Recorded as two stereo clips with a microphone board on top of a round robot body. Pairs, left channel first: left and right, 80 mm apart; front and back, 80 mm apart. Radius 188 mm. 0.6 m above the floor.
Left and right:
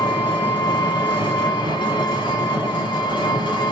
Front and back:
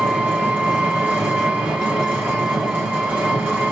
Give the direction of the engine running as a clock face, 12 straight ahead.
8 o'clock.